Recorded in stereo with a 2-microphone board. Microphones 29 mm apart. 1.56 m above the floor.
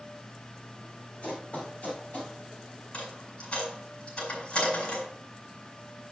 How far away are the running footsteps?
About 4.5 m.